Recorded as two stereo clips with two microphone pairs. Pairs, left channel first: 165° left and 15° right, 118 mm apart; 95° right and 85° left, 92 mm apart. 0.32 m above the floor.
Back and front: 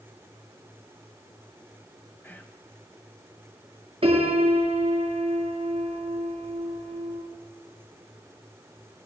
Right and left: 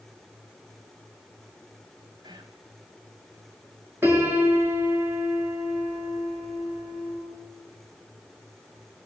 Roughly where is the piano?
Ahead.